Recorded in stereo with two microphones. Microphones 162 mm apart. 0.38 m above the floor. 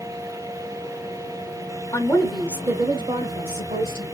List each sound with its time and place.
1.9 s a woman speaking: 20° left (ahead or behind), 0.8 m; by 4.0 s 55° right (ahead or behind), 1.4 m